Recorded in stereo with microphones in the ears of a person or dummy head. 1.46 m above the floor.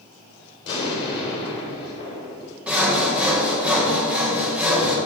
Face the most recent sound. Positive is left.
turn(degrees=-10)  # may be behind; listen again after turning